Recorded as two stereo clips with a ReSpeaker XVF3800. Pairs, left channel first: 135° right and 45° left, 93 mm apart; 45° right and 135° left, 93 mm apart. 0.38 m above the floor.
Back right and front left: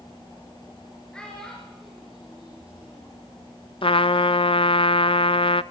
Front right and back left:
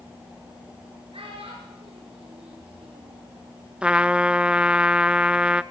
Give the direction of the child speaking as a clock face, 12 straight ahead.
7 o'clock.